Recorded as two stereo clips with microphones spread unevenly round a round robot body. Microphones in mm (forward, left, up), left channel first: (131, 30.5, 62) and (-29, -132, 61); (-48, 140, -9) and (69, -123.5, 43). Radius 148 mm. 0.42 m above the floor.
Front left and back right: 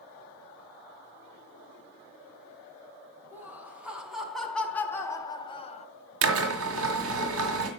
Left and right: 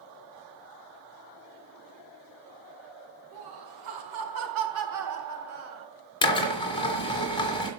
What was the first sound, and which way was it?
Laughter, 55° right.